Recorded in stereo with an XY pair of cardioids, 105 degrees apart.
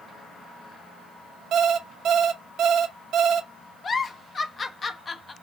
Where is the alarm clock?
70° right, 0.8 m.